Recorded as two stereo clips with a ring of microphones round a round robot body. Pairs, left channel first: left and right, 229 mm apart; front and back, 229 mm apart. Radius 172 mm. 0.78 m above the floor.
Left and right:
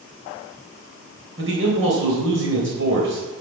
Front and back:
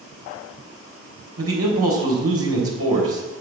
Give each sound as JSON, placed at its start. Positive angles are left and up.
{"t": 1.4, "sound": "a man speaking", "azimuth_deg": -140, "distance_m": 3.0}